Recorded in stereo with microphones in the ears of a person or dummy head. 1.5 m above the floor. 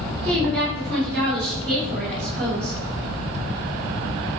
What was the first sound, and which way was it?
A woman speaking, centre (ahead or behind).